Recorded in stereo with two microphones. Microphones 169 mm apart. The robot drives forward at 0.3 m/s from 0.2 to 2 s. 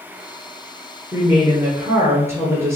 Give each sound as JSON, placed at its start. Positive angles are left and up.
{"t": 1.1, "sound": "a woman speaking", "side_deg": -15, "distance_m": 2.0}